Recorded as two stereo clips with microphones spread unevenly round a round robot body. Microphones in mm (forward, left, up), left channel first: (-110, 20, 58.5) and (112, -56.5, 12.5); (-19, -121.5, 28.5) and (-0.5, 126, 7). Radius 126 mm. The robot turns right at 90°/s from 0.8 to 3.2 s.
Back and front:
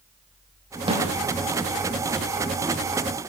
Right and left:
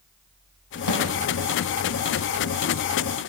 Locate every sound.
0.9 s a snare drum: 90° right, 6 m; by 1.0 s 75° right, 6 m